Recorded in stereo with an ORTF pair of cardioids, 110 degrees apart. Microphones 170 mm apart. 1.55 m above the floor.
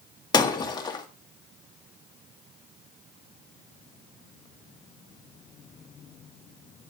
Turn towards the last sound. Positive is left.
turn(degrees=25)